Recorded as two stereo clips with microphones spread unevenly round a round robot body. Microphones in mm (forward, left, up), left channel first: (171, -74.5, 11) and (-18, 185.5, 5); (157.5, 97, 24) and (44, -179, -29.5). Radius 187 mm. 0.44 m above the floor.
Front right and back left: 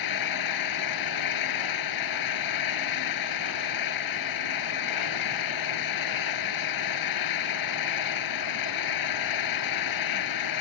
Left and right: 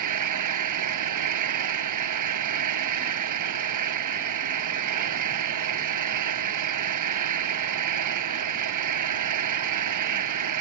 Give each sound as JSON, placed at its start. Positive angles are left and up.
{"t": 0.0, "sound": "an engine running", "azimuth_deg": -95}